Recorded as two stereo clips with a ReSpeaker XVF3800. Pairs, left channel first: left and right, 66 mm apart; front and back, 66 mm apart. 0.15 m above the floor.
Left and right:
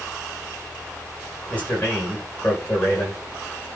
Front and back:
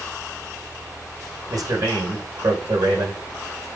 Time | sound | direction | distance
1.5 | a man speaking | 150° left | 8.5 m